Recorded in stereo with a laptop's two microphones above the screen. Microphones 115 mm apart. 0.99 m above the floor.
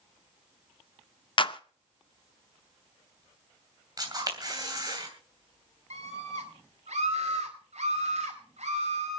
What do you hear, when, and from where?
1.4 s a clap: 50° left (ahead or behind), 0.6 m
4.0 s a camera shutter: 35° right (ahead or behind), 3 m
5.9 s a scream: 80° right, 4.5 m